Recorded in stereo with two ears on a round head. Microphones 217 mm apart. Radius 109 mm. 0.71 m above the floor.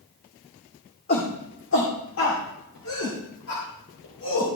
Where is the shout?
40° left (ahead or behind), 1.9 m; by 4.6 s 75° left (ahead or behind), 4 m.